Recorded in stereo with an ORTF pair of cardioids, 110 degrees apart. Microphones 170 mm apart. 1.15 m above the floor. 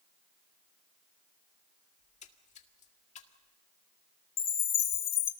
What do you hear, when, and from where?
2.0 s a splash: 45° left, 1.9 m
4.4 s a chime: 60° left, 1.6 m